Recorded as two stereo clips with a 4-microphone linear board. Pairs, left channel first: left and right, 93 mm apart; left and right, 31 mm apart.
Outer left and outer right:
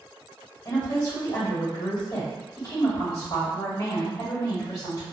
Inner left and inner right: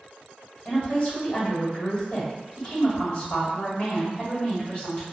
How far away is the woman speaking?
About 1.6 m.